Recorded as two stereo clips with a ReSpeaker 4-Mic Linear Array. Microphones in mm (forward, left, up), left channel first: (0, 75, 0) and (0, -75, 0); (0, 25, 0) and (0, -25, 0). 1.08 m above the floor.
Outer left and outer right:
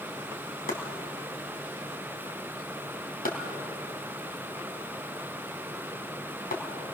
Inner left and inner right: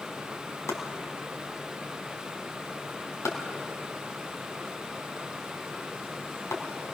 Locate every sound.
0.7 s chopping: 75° left (ahead or behind), 3.5 m